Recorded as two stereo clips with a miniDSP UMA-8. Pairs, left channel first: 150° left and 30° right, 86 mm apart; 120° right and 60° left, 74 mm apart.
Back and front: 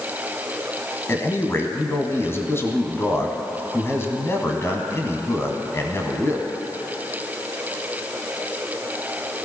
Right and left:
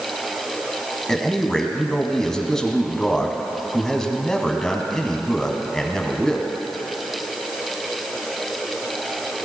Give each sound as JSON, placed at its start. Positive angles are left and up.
{"t": 1.1, "sound": "a man speaking", "azimuth_deg": 165, "distance_m": 1.4}